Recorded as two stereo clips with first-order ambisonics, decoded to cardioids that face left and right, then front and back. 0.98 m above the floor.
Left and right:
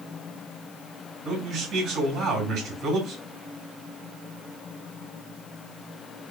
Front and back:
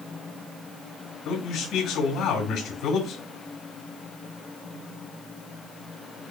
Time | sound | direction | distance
1.2 | a man speaking | 35° right | 2.5 m